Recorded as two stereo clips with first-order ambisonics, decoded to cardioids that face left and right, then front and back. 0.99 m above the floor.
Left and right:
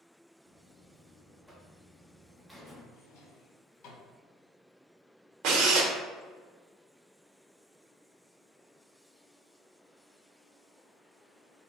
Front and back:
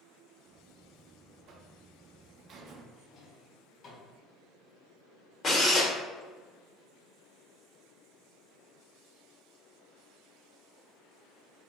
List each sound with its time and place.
0.5 s a buzzer: 175° right, 0.6 m
2.9 s a drawer: 60° left, 1.5 m
5.4 s a drill: 65° right, 0.9 m